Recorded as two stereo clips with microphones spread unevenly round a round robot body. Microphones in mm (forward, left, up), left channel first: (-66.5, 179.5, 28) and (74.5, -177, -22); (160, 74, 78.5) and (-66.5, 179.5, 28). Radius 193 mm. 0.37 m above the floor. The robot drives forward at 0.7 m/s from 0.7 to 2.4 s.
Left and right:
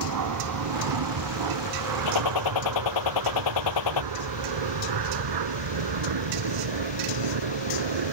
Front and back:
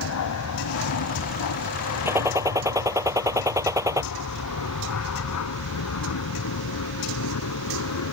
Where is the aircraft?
35° right; by 8.1 s 45° right.